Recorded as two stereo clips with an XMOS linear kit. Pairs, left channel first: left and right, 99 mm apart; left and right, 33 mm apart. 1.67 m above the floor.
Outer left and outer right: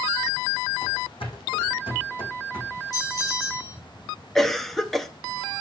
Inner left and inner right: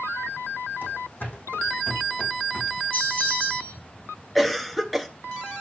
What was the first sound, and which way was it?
Running footsteps, 70° left (ahead or behind).